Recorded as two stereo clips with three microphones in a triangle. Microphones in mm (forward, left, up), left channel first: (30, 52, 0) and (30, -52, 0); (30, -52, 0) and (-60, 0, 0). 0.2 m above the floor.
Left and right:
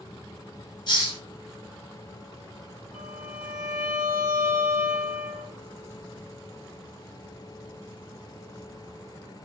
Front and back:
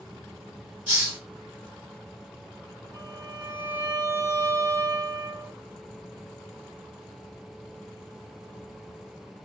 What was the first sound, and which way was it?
A hiss, 85° left.